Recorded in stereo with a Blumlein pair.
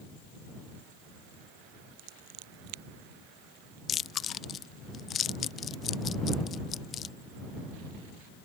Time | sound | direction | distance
2.0 | scissors | 45° right | ?
3.9 | chewing | 25° left | ?